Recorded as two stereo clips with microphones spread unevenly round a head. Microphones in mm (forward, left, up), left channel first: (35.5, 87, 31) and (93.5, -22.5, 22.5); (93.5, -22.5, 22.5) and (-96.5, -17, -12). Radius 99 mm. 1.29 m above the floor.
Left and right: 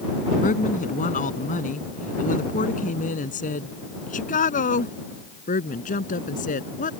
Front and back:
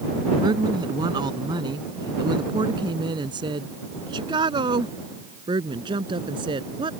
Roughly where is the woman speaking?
Left.